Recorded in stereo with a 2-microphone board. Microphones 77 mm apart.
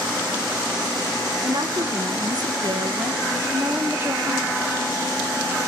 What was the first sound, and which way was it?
A woman speaking, 60° right (ahead or behind).